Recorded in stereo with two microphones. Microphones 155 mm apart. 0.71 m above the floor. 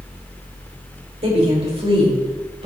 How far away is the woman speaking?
About 2.5 m.